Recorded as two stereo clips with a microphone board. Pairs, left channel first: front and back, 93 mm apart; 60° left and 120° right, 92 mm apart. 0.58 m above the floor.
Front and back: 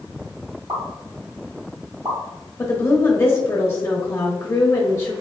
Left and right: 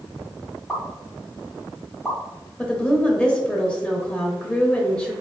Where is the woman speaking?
10° right, 0.7 m.